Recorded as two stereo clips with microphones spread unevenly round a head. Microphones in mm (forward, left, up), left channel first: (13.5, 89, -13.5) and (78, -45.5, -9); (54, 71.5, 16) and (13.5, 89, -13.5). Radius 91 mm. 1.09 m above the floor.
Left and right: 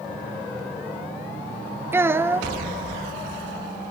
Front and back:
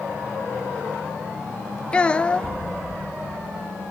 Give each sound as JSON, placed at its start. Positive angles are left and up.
{"t": 1.9, "sound": "a child speaking", "azimuth_deg": 5, "distance_m": 0.7}